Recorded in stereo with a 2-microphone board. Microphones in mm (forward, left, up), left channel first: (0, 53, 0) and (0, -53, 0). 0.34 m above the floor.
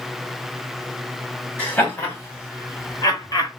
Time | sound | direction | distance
1.6 | laughter | 20° left (ahead or behind) | 1.9 m